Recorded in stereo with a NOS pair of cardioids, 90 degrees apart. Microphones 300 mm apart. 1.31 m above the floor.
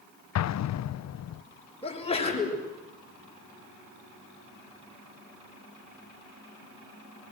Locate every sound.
0.3 s an explosion: 55° left, 0.8 m
1.8 s a sneeze: 20° left, 6.5 m